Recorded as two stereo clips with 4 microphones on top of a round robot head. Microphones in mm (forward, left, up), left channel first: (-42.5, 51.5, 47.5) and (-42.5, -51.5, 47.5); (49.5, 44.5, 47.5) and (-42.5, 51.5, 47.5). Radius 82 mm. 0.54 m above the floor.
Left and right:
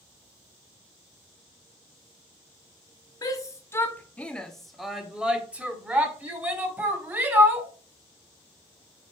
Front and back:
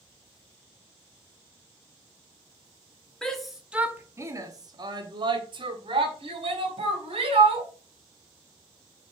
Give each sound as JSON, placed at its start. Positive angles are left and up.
{"t": 3.2, "sound": "a shout", "azimuth_deg": 75, "distance_m": 1.2}